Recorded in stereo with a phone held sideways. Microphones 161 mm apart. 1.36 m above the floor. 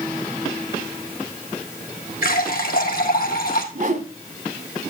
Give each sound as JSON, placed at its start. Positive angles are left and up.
{"t": 2.2, "sound": "a running tap", "side_deg": 65, "distance_m": 1.7}
{"t": 3.8, "sound": "a whoosh", "side_deg": -55, "distance_m": 1.5}